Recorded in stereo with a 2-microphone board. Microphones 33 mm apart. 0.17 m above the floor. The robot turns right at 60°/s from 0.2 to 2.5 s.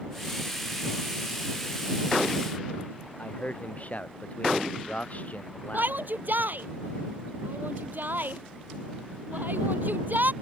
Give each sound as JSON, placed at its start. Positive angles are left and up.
{"t": 3.2, "sound": "a man speaking", "side_deg": 50}
{"t": 5.7, "sound": "a shout", "side_deg": -75}